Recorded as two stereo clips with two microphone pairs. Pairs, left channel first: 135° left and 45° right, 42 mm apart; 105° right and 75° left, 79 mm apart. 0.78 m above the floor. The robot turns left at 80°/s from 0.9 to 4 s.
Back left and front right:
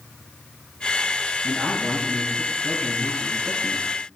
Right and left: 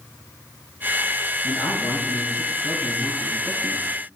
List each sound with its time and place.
1.4 s a man speaking: 60° right, 5 m; by 3.8 s 110° left, 5 m